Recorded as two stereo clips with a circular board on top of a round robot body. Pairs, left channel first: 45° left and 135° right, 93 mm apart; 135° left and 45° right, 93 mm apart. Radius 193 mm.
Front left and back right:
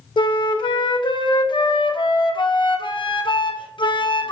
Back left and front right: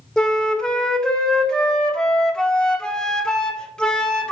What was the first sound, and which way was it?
A flute, 55° left.